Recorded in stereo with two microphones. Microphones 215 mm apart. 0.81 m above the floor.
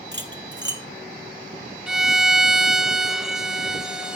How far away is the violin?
About 0.8 m.